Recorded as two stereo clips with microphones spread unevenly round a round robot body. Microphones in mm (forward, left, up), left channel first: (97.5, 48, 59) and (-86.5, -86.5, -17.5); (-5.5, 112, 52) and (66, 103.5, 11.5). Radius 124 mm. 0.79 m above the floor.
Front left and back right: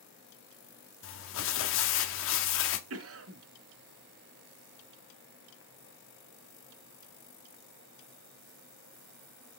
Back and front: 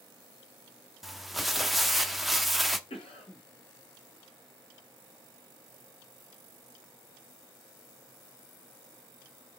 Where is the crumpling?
80° left, 1.0 m.